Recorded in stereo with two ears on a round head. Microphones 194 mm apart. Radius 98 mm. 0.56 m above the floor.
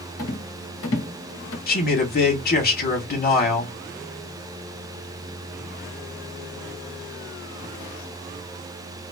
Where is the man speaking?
40° left (ahead or behind), 2 m.